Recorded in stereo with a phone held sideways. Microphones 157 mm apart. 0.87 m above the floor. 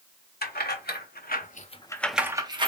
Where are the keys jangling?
85° left, 1.3 m; by 2.7 s 35° right (ahead or behind), 0.8 m.